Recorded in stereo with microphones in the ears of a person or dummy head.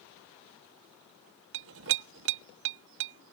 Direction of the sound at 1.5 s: 60° right (ahead or behind).